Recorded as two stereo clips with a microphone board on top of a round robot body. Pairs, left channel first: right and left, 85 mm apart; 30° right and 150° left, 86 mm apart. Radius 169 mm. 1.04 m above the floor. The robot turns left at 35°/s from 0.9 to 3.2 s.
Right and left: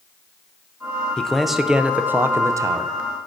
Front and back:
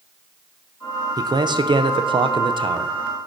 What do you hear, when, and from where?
1.2 s a man speaking: 170° right, 0.6 m; by 2.9 s 125° left, 0.6 m